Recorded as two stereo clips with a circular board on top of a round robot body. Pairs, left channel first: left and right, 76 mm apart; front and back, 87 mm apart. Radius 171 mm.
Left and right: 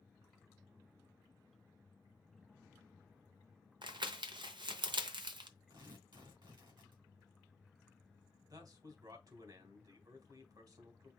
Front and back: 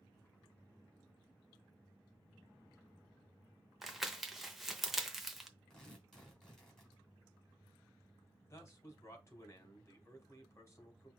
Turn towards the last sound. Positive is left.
turn(degrees=-60)